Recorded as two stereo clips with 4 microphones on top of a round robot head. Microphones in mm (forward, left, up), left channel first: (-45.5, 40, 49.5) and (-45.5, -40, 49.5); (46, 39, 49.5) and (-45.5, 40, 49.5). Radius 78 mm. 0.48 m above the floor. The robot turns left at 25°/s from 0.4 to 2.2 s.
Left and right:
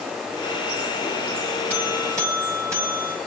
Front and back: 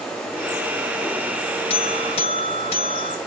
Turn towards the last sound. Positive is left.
turn(degrees=-25)